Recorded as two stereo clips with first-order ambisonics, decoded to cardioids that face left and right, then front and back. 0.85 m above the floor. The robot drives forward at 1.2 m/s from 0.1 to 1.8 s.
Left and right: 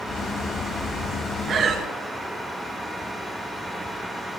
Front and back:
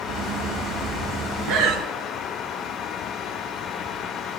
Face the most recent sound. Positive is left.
turn(degrees=-155)